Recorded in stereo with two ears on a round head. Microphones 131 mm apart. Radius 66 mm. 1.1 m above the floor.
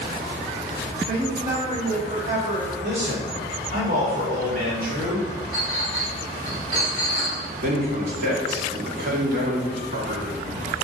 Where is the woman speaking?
50° right (ahead or behind), 4 m.